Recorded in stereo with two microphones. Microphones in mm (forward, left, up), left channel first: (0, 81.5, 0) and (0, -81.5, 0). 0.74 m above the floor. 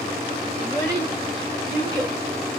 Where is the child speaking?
20° right (ahead or behind), 3 m.